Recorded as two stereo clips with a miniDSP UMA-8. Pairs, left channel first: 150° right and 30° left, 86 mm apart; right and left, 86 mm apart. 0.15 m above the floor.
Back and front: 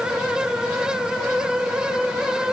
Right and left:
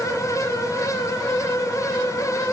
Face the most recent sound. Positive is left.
No sound to turn to.